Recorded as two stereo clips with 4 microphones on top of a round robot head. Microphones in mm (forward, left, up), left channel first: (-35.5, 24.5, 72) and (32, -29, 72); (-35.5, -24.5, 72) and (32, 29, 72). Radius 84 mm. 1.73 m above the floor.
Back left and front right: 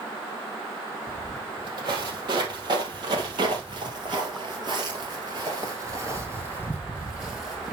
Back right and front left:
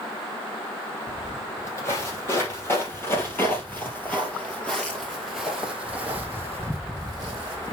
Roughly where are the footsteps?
Right.